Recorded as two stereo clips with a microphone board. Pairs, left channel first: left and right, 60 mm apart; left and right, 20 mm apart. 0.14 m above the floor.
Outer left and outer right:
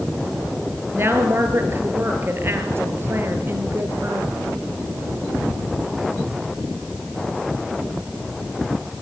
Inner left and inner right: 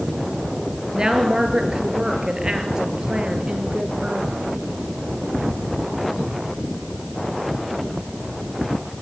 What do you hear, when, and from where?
0.9 s a woman speaking: 40° right (ahead or behind), 3 m